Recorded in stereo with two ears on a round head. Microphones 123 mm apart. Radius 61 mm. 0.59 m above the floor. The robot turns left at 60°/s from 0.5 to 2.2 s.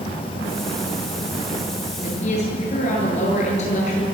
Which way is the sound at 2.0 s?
65° left (ahead or behind).